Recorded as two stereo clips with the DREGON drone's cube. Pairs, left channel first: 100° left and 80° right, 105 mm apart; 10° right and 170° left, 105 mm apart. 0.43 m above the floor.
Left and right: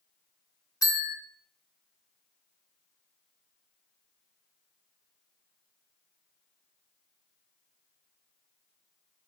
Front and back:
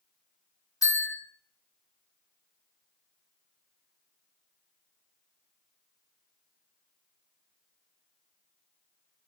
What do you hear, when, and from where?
0.8 s a bell: 45° left, 1.2 m